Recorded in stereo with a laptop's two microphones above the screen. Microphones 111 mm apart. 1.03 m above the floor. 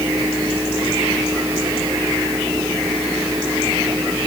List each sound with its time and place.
0.0 s a fan: 30° right (ahead or behind)